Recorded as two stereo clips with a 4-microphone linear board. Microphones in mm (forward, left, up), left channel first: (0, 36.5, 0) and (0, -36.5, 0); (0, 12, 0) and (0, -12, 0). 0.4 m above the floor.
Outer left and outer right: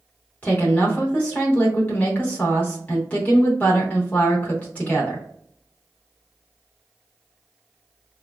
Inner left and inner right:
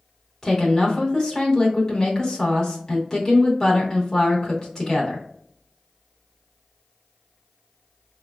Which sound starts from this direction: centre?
A woman speaking, at 0.4 s.